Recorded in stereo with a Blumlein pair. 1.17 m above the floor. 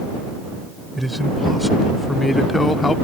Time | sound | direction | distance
0.9 | a man speaking | straight ahead | ?